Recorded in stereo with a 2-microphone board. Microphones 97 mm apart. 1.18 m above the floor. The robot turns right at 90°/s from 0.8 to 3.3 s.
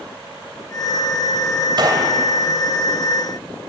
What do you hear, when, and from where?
1.8 s a gunshot: 55° right, 3 m; by 2.1 s 20° right, 3 m